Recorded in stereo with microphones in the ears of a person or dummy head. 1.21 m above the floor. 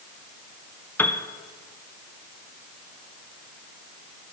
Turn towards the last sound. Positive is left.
turn(degrees=5)  # may be behind; listen again after turning